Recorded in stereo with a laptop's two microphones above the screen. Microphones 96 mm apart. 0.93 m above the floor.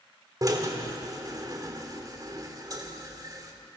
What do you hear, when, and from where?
0.4 s a drill: 40° right (ahead or behind), 3.5 m